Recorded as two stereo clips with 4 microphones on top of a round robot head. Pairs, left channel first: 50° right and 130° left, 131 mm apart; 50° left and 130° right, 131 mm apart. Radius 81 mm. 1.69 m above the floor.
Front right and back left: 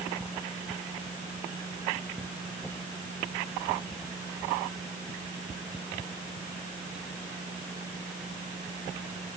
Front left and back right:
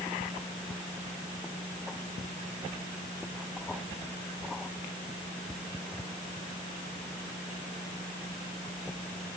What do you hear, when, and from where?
Only background noise.